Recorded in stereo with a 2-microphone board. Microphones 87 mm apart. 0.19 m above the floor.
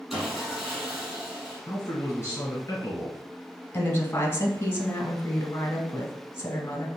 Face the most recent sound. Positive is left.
turn(degrees=30)  # may be behind; listen again after turning